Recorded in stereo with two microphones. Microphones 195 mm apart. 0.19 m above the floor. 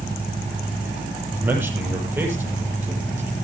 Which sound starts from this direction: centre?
A man speaking, at 1.3 s.